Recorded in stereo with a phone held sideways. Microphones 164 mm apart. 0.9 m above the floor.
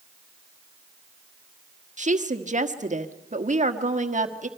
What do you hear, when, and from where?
2.0 s a woman speaking: 50° right (ahead or behind), 1.4 m